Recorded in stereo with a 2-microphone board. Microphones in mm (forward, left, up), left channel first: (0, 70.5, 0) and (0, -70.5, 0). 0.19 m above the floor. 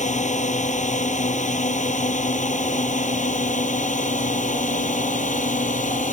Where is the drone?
60° left (ahead or behind).